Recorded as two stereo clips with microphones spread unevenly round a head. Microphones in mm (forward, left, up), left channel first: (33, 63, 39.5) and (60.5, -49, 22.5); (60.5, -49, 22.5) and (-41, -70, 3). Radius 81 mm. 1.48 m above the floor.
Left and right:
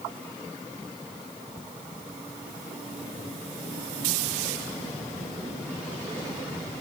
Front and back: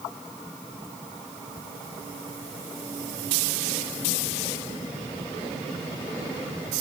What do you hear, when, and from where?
Only background noise.